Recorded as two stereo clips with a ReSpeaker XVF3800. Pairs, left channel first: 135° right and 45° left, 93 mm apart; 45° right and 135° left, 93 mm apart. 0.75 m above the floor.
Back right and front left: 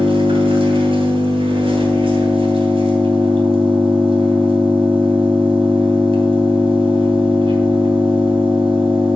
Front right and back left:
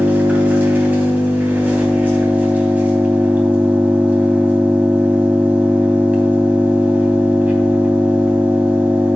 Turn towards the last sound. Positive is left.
turn(degrees=60)